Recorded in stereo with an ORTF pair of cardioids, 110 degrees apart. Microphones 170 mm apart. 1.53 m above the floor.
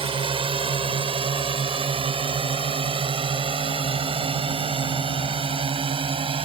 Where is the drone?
30° right.